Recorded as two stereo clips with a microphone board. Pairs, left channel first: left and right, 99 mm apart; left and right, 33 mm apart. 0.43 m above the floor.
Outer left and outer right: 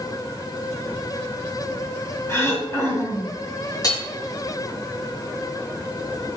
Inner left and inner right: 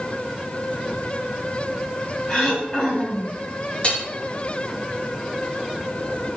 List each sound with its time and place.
2.3 s throat clearing: 30° left (ahead or behind), 4 m
3.8 s hammering: 40° left (ahead or behind), 4.5 m